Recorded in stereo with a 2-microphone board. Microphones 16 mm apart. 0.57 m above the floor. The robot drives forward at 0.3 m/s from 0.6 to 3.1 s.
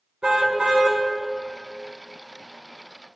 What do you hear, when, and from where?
0.2 s a car horn: 70° right (ahead or behind), 3 m